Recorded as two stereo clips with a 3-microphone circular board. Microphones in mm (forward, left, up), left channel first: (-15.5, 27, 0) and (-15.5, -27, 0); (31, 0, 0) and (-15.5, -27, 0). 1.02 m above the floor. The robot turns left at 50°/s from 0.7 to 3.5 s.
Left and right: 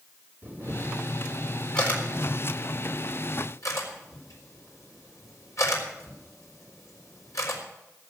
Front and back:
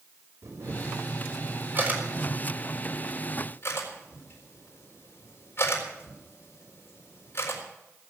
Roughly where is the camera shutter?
Behind right.